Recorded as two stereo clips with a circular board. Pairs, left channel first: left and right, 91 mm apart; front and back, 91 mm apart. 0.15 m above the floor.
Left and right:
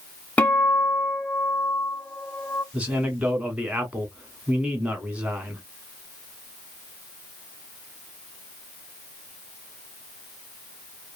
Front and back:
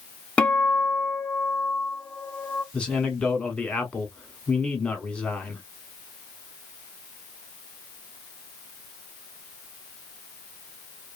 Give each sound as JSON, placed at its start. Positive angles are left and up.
{"t": 0.4, "sound": "a guitar", "azimuth_deg": 50, "distance_m": 0.6}
{"t": 2.7, "sound": "a man speaking", "azimuth_deg": -50, "distance_m": 1.0}